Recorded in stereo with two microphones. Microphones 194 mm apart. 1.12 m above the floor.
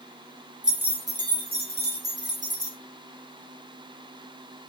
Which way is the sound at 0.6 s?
5° right (ahead or behind).